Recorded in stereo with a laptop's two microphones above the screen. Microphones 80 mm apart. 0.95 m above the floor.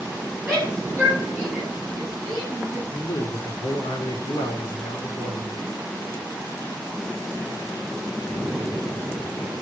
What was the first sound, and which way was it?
A shout, 20° right (ahead or behind).